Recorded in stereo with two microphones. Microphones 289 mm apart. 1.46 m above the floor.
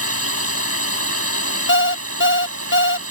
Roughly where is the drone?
Right.